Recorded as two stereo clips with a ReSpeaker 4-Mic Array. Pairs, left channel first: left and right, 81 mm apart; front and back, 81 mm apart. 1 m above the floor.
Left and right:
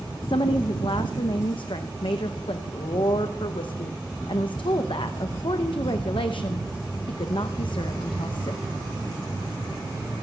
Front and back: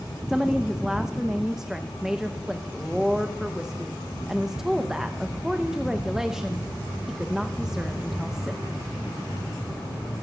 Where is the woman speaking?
95° left, 0.6 m.